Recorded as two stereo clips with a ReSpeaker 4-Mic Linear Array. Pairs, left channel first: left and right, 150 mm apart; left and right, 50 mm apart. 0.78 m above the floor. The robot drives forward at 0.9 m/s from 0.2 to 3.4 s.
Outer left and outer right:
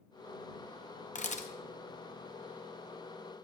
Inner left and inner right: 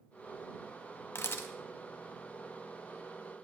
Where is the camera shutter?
50° left (ahead or behind), 0.7 m; by 1.5 s 45° left (ahead or behind), 0.8 m.